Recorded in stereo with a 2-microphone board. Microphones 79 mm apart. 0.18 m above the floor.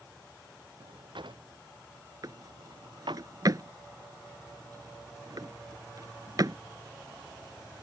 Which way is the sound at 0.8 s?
80° right.